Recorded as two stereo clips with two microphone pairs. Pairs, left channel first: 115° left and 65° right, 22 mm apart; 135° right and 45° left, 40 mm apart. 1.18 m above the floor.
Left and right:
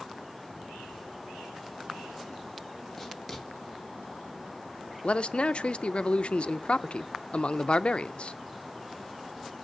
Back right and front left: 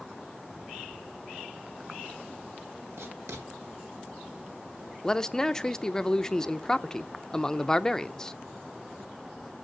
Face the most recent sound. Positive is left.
turn(degrees=150)